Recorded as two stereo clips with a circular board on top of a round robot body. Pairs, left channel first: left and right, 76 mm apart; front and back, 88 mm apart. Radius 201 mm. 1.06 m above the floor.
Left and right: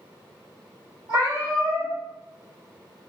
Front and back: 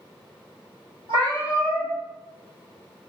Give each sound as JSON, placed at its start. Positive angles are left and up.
{"t": 1.1, "sound": "a cat meowing", "azimuth_deg": -145, "distance_m": 1.4}